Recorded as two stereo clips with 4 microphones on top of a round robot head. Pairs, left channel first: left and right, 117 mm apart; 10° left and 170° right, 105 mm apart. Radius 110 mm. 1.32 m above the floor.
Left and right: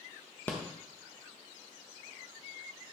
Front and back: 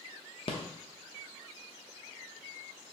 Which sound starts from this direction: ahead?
A rattle, at 0.5 s.